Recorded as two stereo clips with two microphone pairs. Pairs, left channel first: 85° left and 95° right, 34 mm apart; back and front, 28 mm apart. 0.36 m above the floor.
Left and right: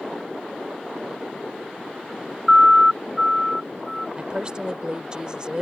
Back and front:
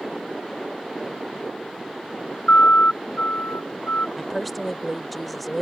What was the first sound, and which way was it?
A siren, 170° right.